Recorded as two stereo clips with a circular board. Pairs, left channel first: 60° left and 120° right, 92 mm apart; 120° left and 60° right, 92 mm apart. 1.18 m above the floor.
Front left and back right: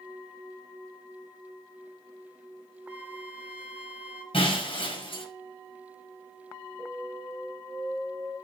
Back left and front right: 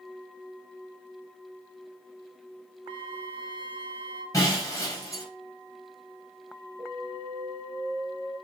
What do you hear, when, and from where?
2.9 s a flute: 45° right, 1.3 m
4.3 s breaking glass: 65° left, 4 m
6.8 s an alarm: 50° right, 3 m